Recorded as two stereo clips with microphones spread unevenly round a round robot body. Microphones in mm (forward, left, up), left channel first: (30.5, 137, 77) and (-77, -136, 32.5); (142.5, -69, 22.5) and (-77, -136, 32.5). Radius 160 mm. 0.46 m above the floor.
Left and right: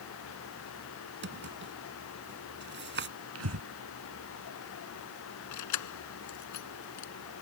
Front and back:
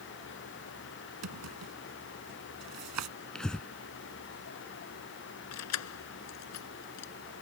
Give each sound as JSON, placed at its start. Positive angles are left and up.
{"t": 1.2, "sound": "a drawer", "azimuth_deg": -165}
{"t": 3.4, "sound": "breathing", "azimuth_deg": -70}
{"t": 5.5, "sound": "keys jangling", "azimuth_deg": 30}